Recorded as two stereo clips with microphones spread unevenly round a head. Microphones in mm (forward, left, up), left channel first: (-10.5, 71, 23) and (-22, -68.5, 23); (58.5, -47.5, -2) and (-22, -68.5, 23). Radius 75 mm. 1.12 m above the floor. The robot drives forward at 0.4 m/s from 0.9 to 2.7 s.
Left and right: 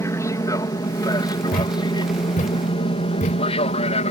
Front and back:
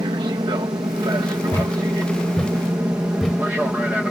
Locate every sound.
0.0 s an aircraft: 150° left; by 4.1 s 105° left
1.5 s a thud: 95° left; by 3.5 s 115° left